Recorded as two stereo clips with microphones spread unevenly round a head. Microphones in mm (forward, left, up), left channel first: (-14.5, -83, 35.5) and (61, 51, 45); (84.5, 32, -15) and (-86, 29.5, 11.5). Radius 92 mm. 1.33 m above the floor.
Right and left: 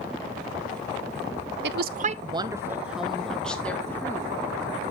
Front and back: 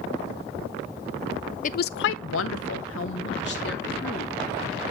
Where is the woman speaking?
45° left, 0.5 m; by 4.3 s 45° right, 1.8 m.